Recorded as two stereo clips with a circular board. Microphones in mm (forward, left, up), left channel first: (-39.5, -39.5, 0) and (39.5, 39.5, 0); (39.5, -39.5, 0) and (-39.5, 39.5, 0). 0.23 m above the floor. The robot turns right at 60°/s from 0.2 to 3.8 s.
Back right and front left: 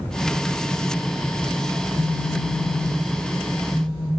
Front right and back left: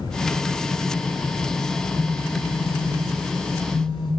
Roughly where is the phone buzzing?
Ahead right.